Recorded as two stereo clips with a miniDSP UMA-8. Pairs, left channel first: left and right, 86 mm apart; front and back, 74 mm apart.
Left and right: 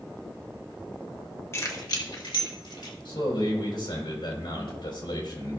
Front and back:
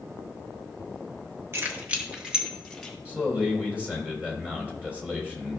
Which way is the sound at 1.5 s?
135° left.